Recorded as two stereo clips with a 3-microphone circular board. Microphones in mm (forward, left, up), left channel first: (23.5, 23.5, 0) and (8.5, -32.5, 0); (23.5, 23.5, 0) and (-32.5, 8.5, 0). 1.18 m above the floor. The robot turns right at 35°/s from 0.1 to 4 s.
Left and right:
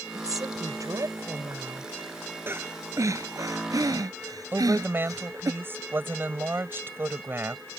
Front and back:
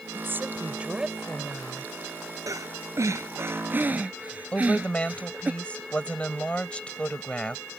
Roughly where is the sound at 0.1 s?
Behind right.